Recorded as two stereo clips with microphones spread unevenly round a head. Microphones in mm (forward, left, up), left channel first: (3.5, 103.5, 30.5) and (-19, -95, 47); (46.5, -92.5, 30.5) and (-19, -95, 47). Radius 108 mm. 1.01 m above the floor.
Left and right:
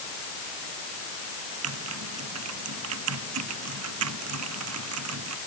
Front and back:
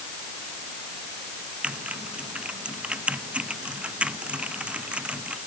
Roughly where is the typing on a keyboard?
Right.